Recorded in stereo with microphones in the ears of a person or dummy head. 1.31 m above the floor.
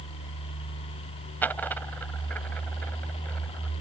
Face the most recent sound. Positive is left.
turn(degrees=10)  # may be behind; listen again after turning